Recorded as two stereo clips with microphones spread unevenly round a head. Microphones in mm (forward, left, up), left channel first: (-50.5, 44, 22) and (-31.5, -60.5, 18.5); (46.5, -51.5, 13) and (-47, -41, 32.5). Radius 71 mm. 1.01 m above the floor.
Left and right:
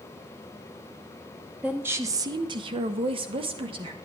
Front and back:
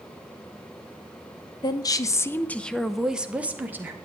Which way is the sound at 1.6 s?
5° right.